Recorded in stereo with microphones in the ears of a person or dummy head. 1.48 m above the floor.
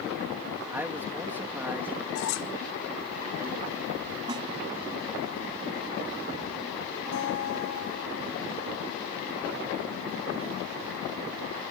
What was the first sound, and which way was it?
A man speaking, 10° right (ahead or behind).